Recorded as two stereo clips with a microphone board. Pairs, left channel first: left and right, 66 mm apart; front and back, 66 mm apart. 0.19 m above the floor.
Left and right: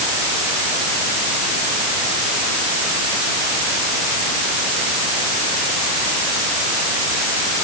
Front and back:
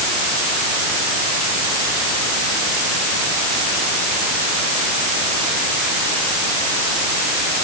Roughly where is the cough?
No cough in this recording.